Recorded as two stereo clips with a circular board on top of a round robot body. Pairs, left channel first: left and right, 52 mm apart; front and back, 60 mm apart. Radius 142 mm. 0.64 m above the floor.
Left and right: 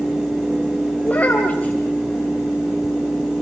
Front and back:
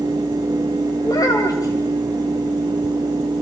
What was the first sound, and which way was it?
A child speaking, 30° left.